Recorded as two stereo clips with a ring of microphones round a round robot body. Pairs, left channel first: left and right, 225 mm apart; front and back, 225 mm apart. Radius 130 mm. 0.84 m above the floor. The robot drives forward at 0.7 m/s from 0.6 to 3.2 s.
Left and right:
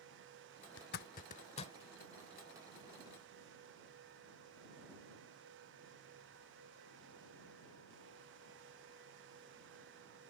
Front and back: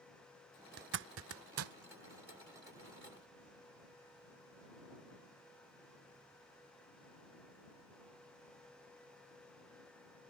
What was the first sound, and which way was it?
A zipper, 135° left.